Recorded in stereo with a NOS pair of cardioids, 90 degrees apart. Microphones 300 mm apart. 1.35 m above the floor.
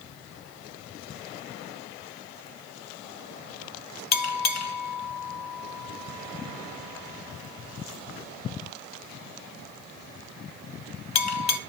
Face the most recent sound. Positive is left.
turn(degrees=60)